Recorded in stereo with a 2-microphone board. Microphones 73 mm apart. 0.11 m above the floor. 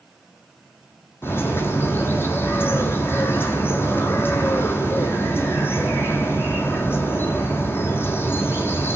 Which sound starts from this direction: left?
A bird, at 1.2 s.